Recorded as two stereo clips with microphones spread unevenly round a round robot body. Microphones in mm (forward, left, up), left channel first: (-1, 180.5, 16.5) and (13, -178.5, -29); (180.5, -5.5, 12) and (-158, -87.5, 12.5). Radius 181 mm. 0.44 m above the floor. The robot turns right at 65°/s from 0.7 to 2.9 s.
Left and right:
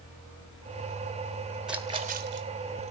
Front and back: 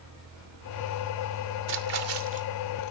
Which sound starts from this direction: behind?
A splash, at 1.7 s.